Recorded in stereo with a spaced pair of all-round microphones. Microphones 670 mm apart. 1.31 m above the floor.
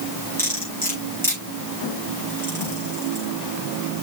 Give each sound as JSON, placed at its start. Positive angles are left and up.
{"t": 0.4, "sound": "cutlery clinking", "side_deg": 5, "distance_m": 5.5}